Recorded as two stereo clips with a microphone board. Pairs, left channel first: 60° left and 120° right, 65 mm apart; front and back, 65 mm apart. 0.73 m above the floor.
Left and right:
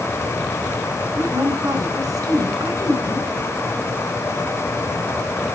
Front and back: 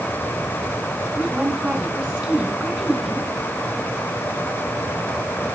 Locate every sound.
1.2 s a woman speaking: 95° right, 4 m